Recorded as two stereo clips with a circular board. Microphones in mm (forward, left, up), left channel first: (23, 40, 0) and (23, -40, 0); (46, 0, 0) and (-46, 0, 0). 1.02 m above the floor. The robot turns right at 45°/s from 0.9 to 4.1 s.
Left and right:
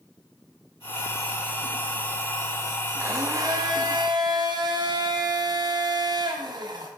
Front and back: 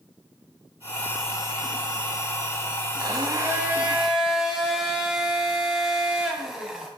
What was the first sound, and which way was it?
A blender, 145° right.